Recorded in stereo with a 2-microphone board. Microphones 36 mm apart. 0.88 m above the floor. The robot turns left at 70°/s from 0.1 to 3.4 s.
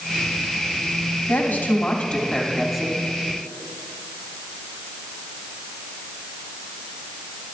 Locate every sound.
1.3 s a woman speaking: 90° left, 2.5 m; by 3.0 s 30° right, 2.5 m